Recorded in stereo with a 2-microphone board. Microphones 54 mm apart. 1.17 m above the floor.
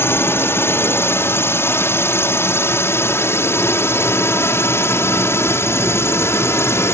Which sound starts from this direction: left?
A drone, at 0.0 s.